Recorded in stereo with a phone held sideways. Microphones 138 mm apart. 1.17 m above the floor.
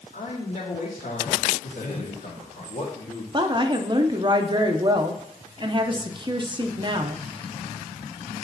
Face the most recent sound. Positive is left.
turn(degrees=-35)  # may be behind; listen again after turning